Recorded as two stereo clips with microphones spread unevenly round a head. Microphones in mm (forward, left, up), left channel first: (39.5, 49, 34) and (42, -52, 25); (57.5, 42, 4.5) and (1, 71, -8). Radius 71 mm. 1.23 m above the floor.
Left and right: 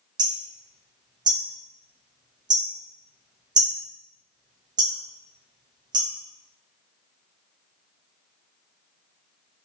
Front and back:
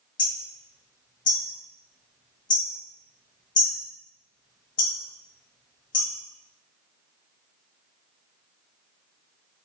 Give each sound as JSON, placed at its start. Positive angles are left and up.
{"t": 0.2, "sound": "hammering", "azimuth_deg": -40, "distance_m": 1.6}